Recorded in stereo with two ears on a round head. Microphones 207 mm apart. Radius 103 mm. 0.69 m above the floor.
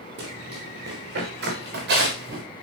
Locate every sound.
0.2 s running footsteps: 50° right (ahead or behind), 5 m; by 2.4 s 45° right (ahead or behind), 6.5 m